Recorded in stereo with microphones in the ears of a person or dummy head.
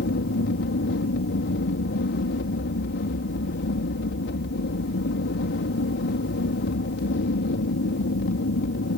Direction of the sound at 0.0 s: 60° left (ahead or behind).